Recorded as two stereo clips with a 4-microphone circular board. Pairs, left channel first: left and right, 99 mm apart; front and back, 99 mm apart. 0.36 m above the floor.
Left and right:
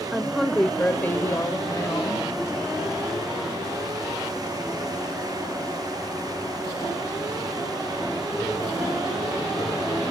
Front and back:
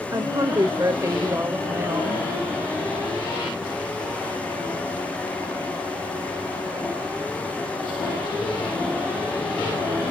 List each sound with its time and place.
0.1 s a woman speaking: 175° right, 1.2 m; by 2.3 s 125° left, 1.6 m